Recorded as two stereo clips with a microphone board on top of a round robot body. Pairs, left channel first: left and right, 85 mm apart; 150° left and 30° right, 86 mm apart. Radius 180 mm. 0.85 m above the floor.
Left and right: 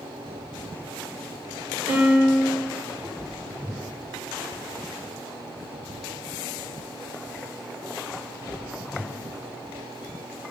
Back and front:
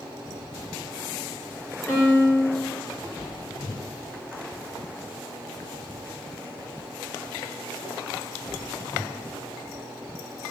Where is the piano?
140° right, 2.5 m.